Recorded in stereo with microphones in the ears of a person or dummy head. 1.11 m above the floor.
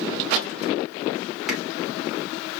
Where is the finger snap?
Centre (ahead or behind), 2.5 m.